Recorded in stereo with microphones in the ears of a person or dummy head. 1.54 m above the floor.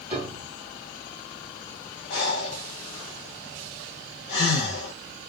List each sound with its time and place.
0.1 s a piano: 5° right (ahead or behind), 1.8 m
2.1 s breathing: 50° left (ahead or behind), 1.1 m